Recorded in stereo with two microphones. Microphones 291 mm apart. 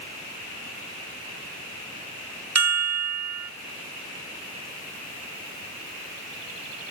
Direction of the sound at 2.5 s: 65° right (ahead or behind).